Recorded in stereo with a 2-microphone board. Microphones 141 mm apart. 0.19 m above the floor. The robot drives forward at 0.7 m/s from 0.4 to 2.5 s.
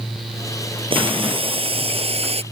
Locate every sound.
0.9 s boiling: 40° right (ahead or behind); by 2.4 s 45° right (ahead or behind)